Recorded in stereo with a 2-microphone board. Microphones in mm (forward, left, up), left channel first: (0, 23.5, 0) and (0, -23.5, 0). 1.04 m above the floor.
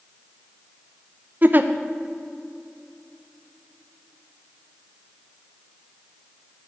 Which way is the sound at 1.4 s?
40° right (ahead or behind).